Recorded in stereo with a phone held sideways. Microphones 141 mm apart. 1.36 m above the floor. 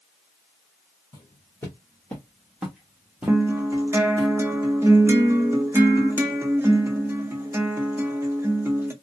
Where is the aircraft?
I don't hear an aircraft.